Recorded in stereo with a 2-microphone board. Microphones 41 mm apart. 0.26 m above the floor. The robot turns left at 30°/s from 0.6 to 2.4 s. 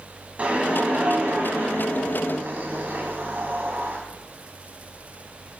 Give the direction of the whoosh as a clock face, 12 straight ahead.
1 o'clock.